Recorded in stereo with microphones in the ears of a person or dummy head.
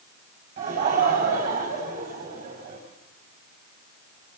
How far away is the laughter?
About 5.5 m.